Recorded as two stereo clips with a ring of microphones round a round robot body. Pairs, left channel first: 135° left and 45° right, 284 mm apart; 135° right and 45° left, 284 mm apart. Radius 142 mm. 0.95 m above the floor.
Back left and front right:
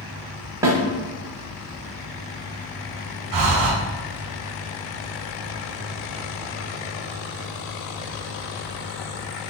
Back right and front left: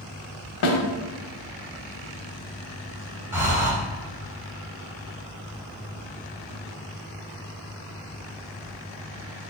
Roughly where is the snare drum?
Behind right.